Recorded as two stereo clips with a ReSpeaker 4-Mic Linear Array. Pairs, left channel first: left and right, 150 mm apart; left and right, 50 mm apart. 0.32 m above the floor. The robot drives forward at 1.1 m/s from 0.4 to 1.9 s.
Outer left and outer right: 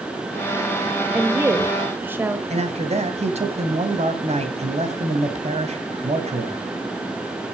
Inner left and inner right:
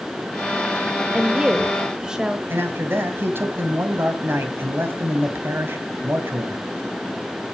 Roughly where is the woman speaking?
Centre.